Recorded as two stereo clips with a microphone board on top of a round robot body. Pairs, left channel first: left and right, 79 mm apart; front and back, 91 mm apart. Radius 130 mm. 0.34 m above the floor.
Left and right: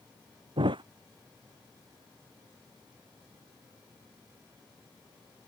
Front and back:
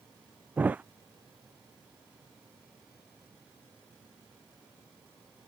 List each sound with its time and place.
0.6 s a thud: 105° right